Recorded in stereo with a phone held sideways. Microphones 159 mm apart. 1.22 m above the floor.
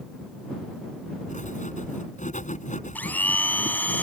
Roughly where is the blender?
Centre.